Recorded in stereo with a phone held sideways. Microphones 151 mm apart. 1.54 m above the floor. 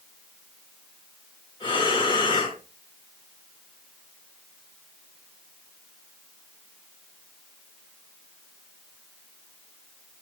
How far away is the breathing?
About 3.5 m.